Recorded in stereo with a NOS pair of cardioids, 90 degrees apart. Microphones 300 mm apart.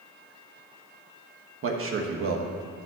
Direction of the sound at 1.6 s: 45° right.